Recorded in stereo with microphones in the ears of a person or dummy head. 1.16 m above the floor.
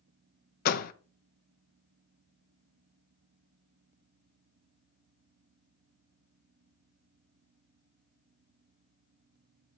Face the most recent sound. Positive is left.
turn(degrees=50)  # may be behind; listen again after turning